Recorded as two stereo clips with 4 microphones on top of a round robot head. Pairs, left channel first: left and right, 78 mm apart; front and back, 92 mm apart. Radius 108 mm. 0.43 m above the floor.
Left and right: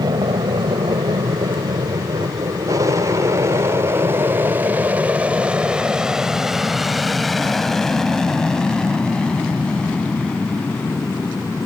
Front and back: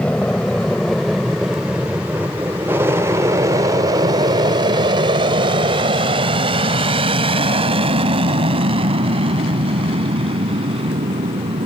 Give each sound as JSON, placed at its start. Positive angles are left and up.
{"t": 0.0, "sound": "an aircraft", "azimuth_deg": -75}